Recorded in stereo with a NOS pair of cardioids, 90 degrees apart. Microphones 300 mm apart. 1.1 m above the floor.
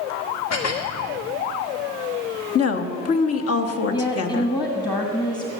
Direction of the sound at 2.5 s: 50° left.